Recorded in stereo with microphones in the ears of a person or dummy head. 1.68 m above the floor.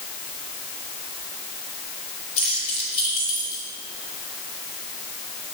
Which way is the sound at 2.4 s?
35° left (ahead or behind).